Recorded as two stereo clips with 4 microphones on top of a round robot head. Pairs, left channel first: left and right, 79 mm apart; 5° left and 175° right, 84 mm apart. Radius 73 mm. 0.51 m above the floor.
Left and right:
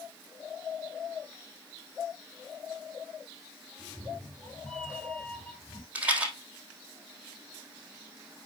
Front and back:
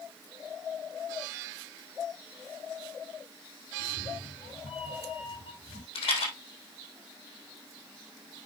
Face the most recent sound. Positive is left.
turn(degrees=-20)